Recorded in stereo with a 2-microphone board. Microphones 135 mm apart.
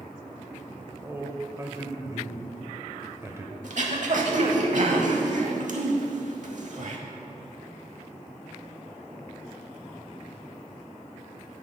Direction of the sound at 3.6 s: 65° right (ahead or behind).